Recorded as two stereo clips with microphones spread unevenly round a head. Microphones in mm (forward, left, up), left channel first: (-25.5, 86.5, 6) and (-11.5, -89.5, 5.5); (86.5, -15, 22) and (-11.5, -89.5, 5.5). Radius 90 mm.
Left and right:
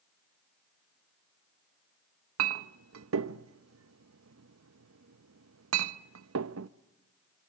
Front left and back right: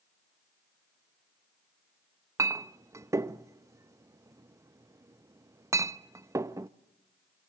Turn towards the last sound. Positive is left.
turn(degrees=-75)